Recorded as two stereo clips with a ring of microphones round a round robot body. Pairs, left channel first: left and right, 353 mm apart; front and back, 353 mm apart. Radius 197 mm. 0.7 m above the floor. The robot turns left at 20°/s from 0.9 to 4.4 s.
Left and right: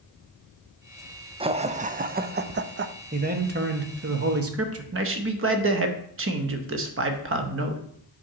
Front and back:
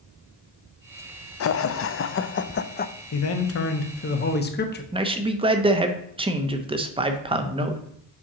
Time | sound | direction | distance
1.4 | laughter | 20° right | 0.5 m
3.1 | a man speaking | 30° right | 1.0 m
4.9 | a man speaking | 115° right | 0.8 m